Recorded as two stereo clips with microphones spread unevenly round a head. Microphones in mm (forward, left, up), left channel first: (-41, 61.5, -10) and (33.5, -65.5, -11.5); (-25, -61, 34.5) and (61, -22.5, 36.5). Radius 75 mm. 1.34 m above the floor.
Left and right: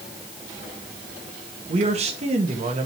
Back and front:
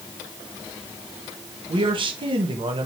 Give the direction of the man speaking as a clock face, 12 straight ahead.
12 o'clock.